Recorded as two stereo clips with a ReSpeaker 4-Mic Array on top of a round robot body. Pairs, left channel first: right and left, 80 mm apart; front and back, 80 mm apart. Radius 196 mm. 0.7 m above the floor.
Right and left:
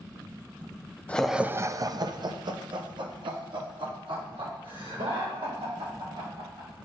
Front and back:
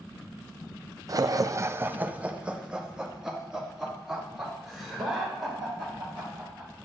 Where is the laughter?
155° right, 0.5 m; by 6.7 s 90° left, 3.5 m.